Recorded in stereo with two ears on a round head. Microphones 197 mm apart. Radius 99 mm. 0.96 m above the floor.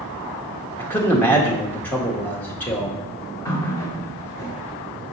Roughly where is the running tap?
Centre.